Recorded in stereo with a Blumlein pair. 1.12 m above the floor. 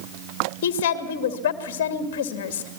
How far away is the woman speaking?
About 2.5 m.